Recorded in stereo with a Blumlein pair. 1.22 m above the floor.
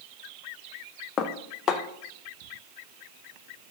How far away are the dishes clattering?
About 0.6 m.